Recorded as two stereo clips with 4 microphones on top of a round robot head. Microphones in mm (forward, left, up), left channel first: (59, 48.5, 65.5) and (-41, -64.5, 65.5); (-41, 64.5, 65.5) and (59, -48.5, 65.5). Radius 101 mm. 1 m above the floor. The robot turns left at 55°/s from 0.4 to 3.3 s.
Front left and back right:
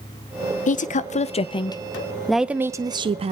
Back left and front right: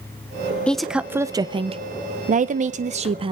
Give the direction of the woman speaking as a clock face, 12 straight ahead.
10 o'clock.